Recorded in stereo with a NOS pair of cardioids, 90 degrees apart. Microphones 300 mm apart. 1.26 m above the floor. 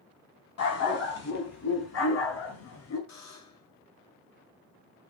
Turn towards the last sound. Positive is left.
turn(degrees=65)